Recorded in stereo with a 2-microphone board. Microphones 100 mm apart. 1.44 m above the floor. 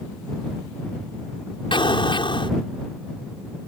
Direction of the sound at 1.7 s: 55° left (ahead or behind).